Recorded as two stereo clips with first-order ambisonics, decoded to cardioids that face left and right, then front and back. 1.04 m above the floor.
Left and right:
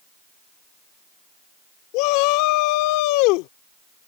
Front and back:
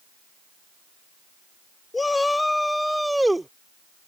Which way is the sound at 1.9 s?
80° left.